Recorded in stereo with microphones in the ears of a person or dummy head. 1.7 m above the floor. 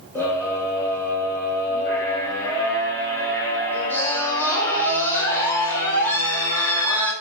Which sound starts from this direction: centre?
A scream, at 0.1 s.